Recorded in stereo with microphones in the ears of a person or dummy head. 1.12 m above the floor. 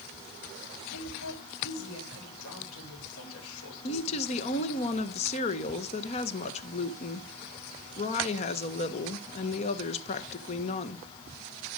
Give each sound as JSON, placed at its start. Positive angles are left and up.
{"t": 0.9, "sound": "a woman speaking", "side_deg": 85, "distance_m": 4.5}
{"t": 3.8, "sound": "a woman speaking", "side_deg": 40, "distance_m": 1.3}